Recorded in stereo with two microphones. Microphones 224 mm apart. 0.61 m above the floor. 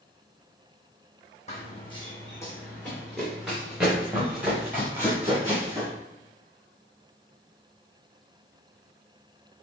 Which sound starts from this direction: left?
Running footsteps, at 1.5 s.